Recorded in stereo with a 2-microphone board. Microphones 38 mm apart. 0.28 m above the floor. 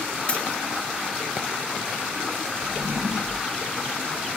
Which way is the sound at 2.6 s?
60° right (ahead or behind).